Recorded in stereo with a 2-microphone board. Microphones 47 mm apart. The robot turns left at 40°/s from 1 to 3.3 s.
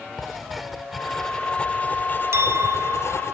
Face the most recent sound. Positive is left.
turn(degrees=-105)